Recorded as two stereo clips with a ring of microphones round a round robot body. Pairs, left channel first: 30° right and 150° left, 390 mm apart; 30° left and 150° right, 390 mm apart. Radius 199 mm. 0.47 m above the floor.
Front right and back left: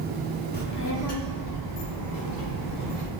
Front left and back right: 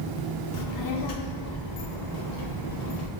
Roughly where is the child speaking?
Ahead left.